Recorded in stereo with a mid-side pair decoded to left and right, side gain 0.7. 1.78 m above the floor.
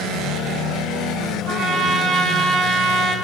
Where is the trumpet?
50° right, 6 m.